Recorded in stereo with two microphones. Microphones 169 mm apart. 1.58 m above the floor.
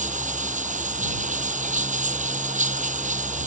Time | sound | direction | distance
0.0 | running water | 45° right (ahead or behind) | ?